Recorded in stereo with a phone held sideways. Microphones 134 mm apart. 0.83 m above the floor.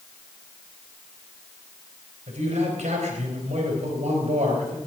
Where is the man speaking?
70° right (ahead or behind), 3.5 m.